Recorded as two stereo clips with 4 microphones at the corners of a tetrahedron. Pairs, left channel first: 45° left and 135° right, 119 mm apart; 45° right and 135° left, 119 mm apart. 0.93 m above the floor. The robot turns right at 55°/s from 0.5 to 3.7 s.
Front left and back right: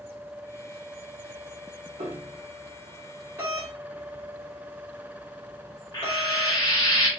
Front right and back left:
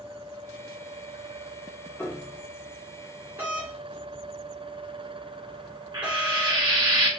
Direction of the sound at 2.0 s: 120° right.